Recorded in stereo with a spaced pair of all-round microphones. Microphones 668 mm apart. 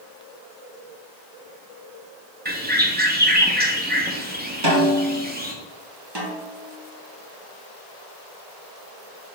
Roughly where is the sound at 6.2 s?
Right.